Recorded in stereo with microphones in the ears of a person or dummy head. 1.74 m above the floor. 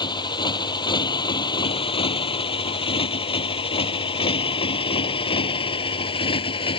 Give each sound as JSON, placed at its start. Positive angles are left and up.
{"t": 0.0, "sound": "a motorcycle", "side_deg": 30}